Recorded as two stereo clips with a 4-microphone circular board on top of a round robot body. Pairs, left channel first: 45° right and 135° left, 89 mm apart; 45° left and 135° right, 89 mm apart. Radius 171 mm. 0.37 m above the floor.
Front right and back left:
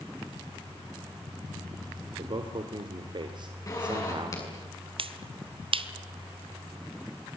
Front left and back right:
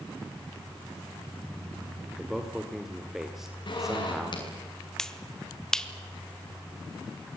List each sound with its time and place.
2.2 s a man speaking: 140° left, 2.5 m
3.7 s a zipper: 10° left, 7 m
5.0 s a finger snap: 130° left, 1.5 m